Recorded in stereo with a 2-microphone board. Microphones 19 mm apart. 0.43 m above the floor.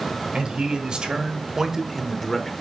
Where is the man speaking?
60° right (ahead or behind), 2 m; by 2.5 s 15° left (ahead or behind), 1.1 m.